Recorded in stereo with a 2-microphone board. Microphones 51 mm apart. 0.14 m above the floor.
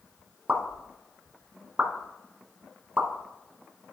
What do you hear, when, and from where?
0.5 s a pop: 25° right (ahead or behind), 1.5 m